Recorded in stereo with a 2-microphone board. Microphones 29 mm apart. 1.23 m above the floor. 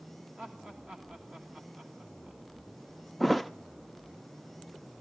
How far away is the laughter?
About 1.9 m.